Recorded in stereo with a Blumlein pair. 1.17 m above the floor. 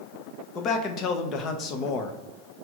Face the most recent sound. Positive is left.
turn(degrees=35)